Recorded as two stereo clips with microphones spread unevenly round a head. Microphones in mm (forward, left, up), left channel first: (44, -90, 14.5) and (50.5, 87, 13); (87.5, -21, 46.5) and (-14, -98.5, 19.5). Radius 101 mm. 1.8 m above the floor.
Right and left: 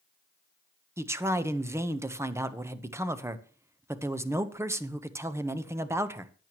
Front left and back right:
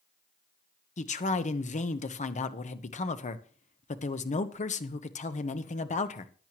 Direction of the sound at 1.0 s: 10° left.